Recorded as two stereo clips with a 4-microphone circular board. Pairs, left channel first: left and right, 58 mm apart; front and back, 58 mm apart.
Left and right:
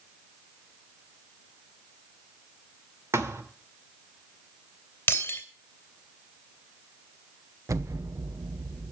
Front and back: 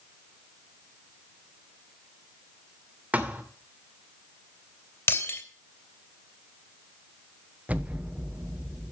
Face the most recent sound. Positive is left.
turn(degrees=-115)